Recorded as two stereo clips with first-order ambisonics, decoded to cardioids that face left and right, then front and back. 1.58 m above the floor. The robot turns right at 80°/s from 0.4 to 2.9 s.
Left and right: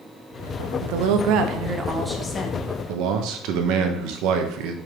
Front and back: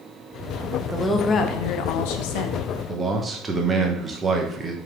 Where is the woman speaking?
100° right, 1.0 m; by 2.7 s 50° left, 1.0 m.